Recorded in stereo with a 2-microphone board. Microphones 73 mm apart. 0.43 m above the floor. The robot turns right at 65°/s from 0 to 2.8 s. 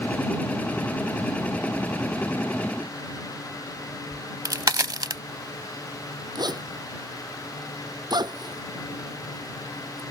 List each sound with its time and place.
4.1 s a crack: 60° right (ahead or behind)
6.3 s a zipper: 65° right (ahead or behind)